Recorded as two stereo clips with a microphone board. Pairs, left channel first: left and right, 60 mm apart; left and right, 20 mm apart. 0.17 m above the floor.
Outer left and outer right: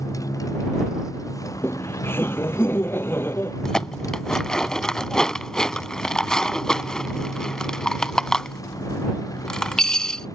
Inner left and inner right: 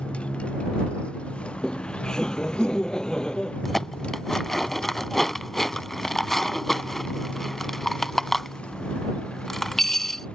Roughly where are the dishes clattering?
Centre.